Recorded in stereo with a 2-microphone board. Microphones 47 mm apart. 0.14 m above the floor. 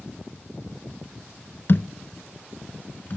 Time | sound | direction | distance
1.7 | a thud | 50° left (ahead or behind) | 0.8 m